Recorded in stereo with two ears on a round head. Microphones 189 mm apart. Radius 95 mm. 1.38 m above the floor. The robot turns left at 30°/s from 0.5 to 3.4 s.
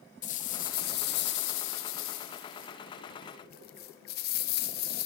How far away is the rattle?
About 0.6 m.